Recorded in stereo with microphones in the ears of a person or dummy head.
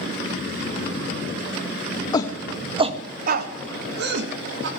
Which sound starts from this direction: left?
A shout, at 2.1 s.